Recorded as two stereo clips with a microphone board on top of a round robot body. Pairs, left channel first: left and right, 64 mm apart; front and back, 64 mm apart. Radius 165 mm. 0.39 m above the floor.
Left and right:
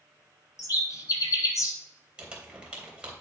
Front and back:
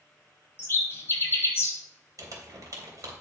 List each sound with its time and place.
0.6 s a bird: 55° left, 1.0 m
2.2 s crumpling: 165° right, 3 m